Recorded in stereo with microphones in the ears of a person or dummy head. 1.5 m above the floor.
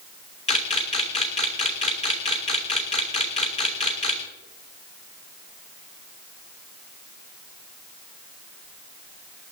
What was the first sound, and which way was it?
A camera shutter, 30° left (ahead or behind).